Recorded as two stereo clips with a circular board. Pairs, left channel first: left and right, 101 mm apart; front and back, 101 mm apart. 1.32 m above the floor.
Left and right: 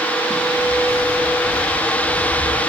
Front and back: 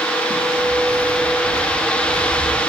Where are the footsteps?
160° left, 8.5 m; by 2.6 s 175° left, 7.5 m.